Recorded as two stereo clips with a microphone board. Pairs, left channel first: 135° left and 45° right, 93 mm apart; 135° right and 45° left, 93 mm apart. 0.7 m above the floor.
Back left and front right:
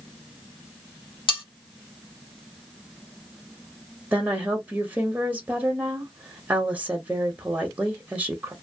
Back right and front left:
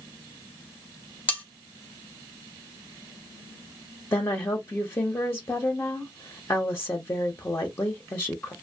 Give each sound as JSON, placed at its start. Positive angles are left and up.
{"t": 1.3, "sound": "cutlery clinking", "azimuth_deg": 155, "distance_m": 1.1}
{"t": 4.1, "sound": "a woman speaking", "azimuth_deg": -105, "distance_m": 0.6}